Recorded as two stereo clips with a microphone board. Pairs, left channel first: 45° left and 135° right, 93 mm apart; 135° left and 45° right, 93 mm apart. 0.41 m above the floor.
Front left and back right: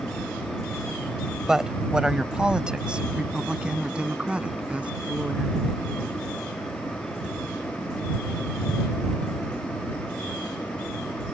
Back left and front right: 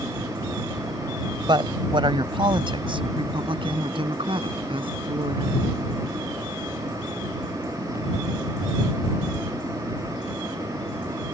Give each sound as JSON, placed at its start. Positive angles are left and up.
{"t": 1.5, "sound": "a woman speaking", "azimuth_deg": -50}